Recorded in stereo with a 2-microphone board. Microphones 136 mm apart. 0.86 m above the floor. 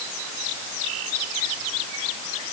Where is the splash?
I don't hear a splash.